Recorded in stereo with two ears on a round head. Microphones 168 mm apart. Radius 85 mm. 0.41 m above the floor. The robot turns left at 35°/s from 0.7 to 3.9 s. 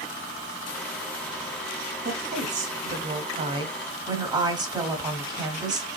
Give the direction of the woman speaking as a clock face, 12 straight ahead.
3 o'clock.